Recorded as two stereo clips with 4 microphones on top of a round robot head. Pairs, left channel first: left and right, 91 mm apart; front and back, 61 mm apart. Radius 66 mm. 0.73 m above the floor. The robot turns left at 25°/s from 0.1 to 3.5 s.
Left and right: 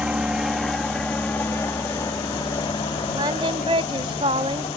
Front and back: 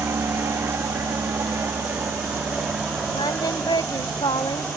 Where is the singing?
35° right; by 4.7 s 40° right.